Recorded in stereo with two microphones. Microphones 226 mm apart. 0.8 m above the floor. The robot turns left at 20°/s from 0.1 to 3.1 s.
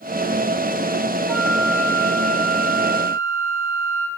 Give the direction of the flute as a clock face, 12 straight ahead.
12 o'clock.